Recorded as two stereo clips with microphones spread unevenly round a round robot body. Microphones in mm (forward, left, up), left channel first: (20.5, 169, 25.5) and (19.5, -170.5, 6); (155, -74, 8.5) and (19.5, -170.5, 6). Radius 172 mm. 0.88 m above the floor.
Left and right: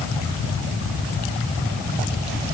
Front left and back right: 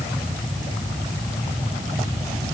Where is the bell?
I don't hear a bell.